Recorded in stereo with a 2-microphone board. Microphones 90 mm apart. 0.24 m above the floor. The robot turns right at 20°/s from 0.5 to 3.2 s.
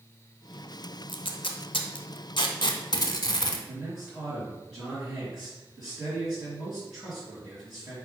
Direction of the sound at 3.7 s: 10° right (ahead or behind).